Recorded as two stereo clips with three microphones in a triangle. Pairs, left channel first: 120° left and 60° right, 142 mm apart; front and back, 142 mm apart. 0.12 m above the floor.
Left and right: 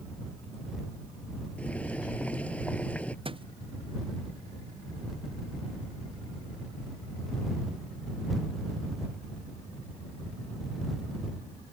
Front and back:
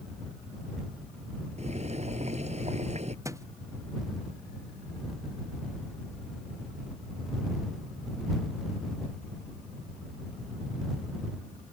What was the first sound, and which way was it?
Boiling, 160° right.